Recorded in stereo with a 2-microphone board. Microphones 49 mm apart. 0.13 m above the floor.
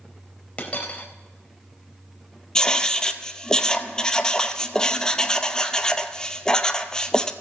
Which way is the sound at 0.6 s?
30° left (ahead or behind).